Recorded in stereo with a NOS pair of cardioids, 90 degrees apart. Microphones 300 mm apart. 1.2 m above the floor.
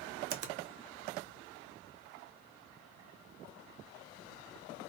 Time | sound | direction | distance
0.3 | a finger snap | 55° right | 0.6 m